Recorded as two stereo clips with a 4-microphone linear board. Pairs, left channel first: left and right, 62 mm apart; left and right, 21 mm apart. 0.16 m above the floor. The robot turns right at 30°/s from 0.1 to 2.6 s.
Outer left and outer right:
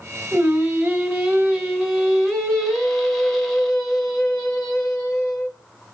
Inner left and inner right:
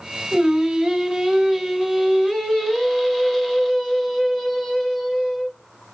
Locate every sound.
0.3 s singing: 25° right (ahead or behind), 1.1 m; by 5.5 s centre (ahead or behind), 1.1 m